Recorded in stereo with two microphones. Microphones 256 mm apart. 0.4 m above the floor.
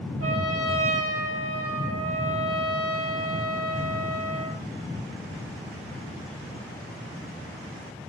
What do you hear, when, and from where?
0.2 s a trumpet: 70° right (ahead or behind), 7 m